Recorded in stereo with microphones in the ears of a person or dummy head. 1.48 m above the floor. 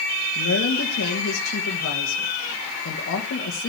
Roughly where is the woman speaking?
Left.